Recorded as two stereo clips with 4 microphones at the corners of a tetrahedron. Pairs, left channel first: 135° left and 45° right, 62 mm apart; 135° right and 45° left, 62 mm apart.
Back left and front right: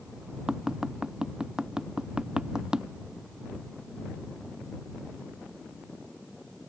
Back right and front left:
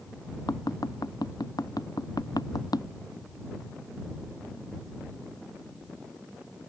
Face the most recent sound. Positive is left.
turn(degrees=-125)